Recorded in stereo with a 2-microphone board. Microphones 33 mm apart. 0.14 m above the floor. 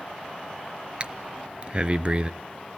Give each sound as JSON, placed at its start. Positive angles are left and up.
{"t": 1.0, "sound": "breathing", "side_deg": -35, "distance_m": 0.5}